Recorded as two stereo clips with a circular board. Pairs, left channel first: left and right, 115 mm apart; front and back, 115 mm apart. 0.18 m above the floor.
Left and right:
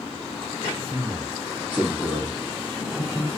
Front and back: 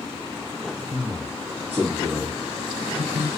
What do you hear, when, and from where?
0.9 s a man speaking: 140° right, 2.5 m; by 3.3 s 165° left, 1.9 m